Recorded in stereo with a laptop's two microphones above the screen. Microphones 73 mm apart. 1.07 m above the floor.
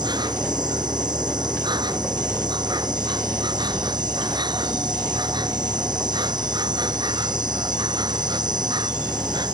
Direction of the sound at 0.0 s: 70° right (ahead or behind).